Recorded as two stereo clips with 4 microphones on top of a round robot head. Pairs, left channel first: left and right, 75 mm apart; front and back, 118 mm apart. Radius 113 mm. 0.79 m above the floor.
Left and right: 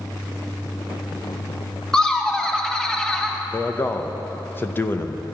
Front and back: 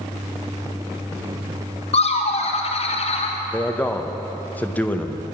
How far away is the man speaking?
About 1.0 m.